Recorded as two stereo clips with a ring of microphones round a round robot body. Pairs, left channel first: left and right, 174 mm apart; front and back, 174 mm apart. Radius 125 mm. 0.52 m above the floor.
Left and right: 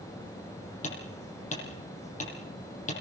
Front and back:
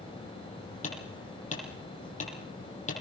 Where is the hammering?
45° left, 9 m.